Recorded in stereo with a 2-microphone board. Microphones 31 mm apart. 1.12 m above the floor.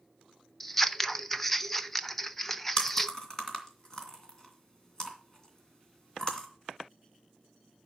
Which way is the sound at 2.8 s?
20° left (ahead or behind).